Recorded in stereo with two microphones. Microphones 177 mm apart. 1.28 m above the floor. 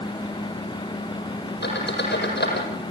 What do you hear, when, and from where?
1.6 s a squeak: 75° left (ahead or behind), 6.5 m